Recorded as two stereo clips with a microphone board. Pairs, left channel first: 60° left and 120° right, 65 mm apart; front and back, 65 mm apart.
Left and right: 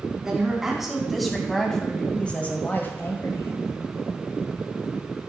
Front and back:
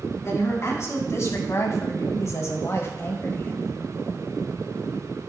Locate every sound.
0.2 s a woman speaking: 40° right, 4 m; by 3.7 s 50° left, 2 m